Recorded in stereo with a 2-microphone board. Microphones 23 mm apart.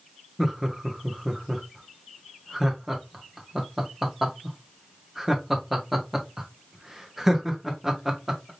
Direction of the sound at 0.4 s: 5° right (ahead or behind).